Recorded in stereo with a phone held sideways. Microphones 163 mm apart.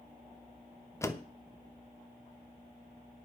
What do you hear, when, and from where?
1.0 s a door slam: 20° left (ahead or behind), 0.9 m